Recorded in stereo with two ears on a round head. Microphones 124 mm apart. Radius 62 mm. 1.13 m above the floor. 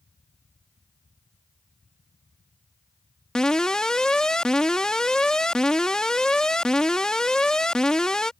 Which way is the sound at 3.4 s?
5° left (ahead or behind).